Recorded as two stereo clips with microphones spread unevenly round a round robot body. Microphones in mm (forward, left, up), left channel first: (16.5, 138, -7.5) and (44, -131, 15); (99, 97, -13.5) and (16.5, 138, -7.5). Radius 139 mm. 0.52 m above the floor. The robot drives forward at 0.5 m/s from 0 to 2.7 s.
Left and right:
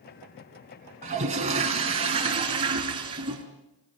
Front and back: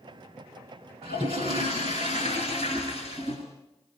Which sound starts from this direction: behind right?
A toilet flushing, at 1.0 s.